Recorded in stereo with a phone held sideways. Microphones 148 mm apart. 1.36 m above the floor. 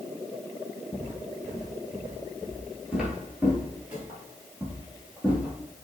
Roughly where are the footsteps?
Centre.